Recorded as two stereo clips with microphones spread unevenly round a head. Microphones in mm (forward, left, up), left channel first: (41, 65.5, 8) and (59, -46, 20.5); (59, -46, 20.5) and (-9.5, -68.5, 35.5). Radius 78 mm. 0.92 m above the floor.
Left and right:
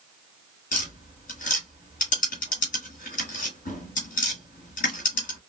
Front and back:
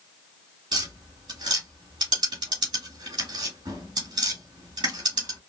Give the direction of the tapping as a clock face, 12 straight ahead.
7 o'clock.